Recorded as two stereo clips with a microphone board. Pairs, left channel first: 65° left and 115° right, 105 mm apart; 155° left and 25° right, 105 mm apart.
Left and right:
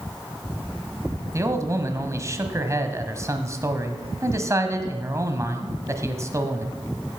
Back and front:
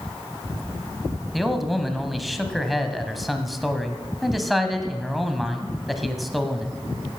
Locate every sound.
1.3 s a man speaking: 110° right, 1.4 m